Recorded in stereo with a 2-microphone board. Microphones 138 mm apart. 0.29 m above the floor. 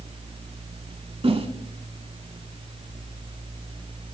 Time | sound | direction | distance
1.2 | a whoosh | 45° right (ahead or behind) | 0.5 m